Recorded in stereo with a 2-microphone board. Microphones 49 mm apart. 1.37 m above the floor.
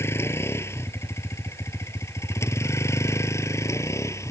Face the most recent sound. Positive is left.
turn(degrees=70)  # may be behind; listen again after turning